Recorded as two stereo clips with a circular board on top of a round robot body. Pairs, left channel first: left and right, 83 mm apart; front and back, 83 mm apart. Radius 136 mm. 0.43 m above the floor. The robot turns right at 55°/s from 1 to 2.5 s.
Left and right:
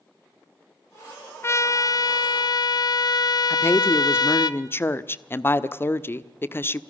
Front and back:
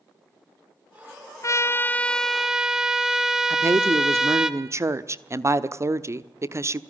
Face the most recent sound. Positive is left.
turn(degrees=140)